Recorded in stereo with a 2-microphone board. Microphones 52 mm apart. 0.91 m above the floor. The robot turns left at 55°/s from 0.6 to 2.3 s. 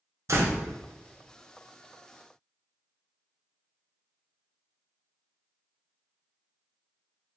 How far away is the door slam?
About 0.7 m.